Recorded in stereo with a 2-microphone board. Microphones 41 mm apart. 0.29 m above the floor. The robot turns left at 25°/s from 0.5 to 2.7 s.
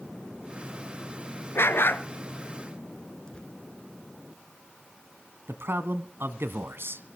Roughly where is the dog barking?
Left.